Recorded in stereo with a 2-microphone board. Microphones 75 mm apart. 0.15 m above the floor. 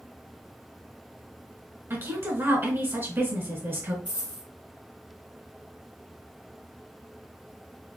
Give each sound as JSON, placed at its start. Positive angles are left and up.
{"t": 1.9, "sound": "a woman speaking", "side_deg": -35, "distance_m": 1.5}
{"t": 4.0, "sound": "a dropped coin", "side_deg": -85, "distance_m": 1.7}